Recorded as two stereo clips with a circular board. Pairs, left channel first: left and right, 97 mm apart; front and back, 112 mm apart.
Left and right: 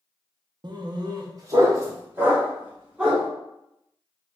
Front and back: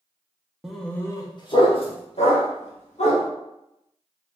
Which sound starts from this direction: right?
A dog barking, at 0.6 s.